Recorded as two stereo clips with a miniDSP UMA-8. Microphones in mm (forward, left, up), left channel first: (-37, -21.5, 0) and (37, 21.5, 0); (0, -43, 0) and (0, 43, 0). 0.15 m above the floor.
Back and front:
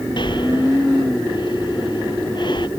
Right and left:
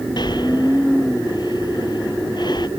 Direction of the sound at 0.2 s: 125° right.